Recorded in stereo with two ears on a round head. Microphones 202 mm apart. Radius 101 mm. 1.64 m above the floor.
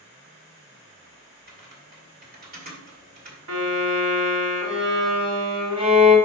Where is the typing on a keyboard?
40° right (ahead or behind), 2 m.